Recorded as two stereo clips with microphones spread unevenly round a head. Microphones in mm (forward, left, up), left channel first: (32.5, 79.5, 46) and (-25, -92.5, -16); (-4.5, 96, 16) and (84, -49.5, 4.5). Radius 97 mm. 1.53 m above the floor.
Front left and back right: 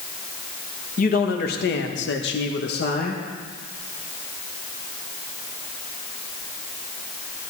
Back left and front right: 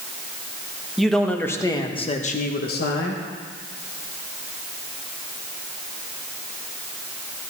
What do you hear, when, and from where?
1.0 s a man speaking: 30° left, 1.6 m; by 3.2 s 110° left, 1.5 m